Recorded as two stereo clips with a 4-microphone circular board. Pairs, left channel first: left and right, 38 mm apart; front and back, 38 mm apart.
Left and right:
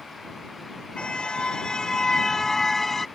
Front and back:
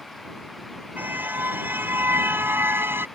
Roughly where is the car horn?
Behind left.